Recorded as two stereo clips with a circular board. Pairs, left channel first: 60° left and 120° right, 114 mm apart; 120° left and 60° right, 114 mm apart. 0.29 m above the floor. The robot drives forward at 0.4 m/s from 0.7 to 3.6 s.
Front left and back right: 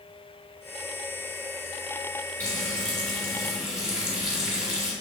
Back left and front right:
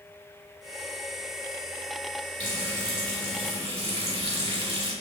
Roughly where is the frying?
Ahead.